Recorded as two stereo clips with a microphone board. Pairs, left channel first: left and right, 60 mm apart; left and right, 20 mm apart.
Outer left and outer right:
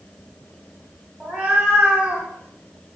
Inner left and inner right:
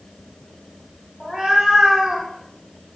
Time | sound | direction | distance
1.2 | a cat meowing | 20° right (ahead or behind) | 1.2 m